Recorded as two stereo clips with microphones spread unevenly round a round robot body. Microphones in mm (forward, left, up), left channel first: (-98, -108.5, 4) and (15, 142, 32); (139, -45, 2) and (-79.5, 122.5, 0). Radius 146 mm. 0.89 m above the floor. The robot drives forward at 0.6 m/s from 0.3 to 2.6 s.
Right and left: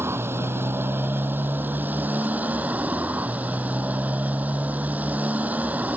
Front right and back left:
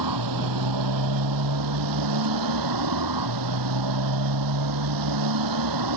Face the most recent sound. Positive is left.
turn(degrees=150)